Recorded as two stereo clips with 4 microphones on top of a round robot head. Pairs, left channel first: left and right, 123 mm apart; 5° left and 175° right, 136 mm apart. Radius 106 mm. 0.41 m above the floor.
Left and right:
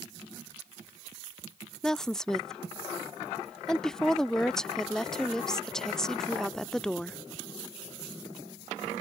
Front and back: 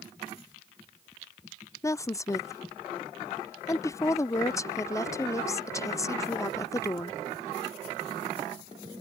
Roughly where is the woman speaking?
Ahead.